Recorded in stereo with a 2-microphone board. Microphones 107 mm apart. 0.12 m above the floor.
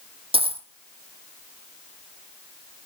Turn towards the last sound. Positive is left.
turn(degrees=-65)  # may be behind; listen again after turning